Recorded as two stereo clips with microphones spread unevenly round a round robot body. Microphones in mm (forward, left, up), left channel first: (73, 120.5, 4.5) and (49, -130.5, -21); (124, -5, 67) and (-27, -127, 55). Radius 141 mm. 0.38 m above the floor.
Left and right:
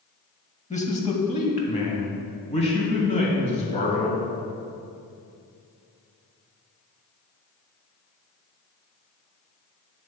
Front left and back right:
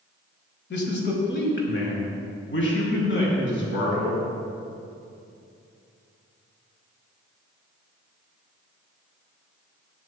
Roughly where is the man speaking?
Ahead.